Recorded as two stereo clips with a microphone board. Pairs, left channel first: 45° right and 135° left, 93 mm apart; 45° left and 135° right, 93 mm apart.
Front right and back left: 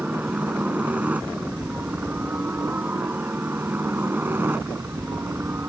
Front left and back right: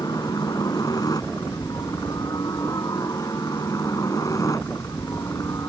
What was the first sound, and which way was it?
A helicopter, 65° left.